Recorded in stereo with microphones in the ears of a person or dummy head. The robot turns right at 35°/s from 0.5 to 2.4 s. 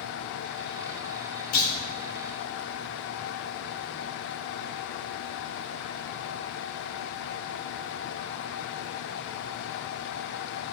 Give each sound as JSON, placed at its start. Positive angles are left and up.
{"t": 1.5, "sound": "a clunk", "side_deg": 45, "distance_m": 3.0}